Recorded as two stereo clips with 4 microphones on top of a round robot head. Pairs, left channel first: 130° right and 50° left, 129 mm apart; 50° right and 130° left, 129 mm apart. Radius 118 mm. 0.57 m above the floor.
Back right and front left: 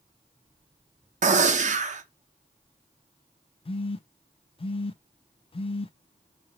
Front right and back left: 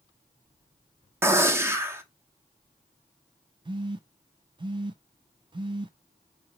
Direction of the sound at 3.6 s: 175° right.